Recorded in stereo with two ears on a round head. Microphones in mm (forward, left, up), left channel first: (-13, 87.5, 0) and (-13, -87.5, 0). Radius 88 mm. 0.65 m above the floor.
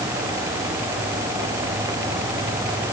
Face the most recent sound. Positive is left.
No sound to turn to.